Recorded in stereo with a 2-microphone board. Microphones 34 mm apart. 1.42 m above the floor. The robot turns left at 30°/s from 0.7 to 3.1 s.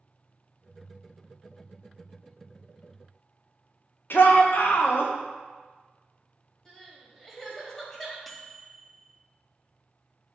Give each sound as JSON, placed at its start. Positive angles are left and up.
{"t": 4.1, "sound": "a shout", "side_deg": 70, "distance_m": 0.9}
{"t": 6.7, "sound": "crying", "side_deg": 10, "distance_m": 1.6}
{"t": 8.3, "sound": "a microwave", "side_deg": 0, "distance_m": 0.6}